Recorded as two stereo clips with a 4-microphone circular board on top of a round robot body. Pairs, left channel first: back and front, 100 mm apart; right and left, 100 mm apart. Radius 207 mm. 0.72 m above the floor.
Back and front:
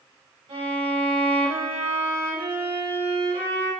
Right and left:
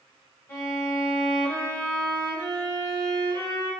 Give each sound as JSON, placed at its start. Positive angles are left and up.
{"t": 0.5, "sound": "a violin", "azimuth_deg": -25, "distance_m": 3.0}